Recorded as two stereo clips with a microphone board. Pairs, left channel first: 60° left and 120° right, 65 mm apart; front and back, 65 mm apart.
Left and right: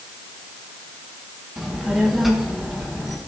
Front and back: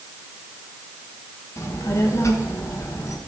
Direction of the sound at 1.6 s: 35° right.